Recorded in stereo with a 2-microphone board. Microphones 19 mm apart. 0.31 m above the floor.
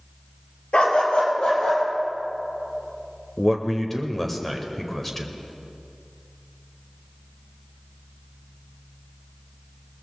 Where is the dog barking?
75° left (ahead or behind), 2 m.